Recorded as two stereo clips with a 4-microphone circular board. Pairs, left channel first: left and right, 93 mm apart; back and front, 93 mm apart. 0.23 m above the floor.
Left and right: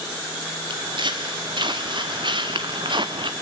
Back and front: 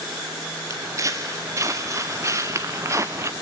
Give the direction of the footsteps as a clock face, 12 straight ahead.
2 o'clock.